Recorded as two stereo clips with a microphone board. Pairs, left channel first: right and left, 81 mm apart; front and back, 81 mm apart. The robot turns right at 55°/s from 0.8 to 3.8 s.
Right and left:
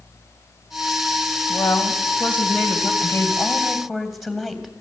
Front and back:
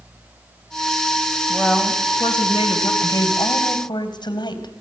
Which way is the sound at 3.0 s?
40° right.